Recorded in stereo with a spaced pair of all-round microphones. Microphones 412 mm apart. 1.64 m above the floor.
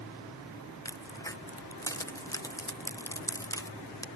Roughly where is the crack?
Centre.